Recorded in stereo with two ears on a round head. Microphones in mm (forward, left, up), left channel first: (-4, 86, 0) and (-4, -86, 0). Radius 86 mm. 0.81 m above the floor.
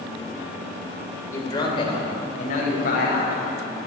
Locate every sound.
1.3 s a man speaking: 15° left (ahead or behind), 3 m; by 3.4 s 55° left (ahead or behind), 4.5 m